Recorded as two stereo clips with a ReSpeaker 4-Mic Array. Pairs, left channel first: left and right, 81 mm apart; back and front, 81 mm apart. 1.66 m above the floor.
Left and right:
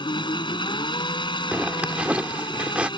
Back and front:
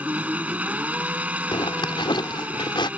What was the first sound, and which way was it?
An engine running, 70° left.